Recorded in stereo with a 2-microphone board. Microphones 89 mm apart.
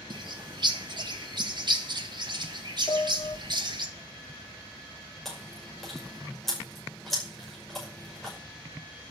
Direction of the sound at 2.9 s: 55° left (ahead or behind).